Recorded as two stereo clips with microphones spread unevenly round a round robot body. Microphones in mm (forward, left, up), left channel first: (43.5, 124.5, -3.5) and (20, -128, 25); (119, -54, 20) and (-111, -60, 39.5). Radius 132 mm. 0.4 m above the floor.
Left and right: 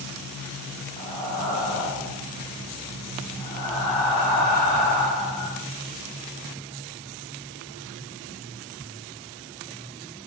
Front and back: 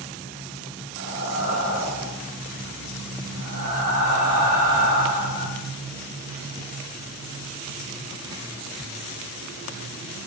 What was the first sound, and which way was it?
Breathing, 175° left.